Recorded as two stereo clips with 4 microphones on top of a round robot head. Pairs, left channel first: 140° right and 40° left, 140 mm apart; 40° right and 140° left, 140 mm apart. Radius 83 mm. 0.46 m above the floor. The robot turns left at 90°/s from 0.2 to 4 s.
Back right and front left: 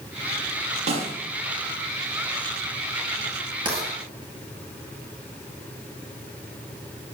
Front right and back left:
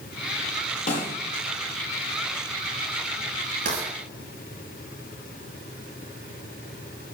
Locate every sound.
0.9 s a snare drum: 5° right, 5.5 m; by 1.1 s 25° right, 5.5 m
3.6 s writing: 100° left, 8.5 m; by 3.9 s 80° left, 8.5 m